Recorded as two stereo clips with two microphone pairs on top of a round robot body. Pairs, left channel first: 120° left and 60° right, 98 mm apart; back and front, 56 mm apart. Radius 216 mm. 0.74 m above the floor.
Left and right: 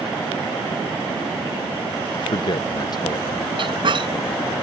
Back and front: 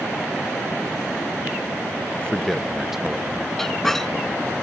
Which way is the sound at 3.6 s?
100° right.